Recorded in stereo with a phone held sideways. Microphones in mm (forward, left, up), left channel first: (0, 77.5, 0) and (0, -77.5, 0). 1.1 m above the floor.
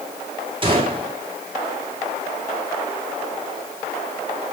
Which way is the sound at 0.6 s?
35° right (ahead or behind).